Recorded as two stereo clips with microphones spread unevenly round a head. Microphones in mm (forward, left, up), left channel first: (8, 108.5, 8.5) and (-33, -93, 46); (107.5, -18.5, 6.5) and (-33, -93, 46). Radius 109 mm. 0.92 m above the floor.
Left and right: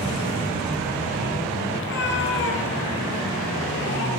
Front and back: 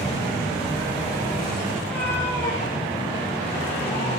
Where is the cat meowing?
115° left, 7 m; by 4.1 s 105° left, 8 m.